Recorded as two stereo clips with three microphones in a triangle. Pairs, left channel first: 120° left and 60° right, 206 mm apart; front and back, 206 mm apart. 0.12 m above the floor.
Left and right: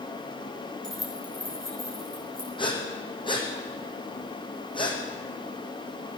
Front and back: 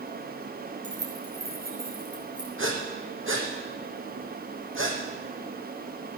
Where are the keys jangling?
150° right, 4 m; by 2.5 s 125° right, 4.5 m.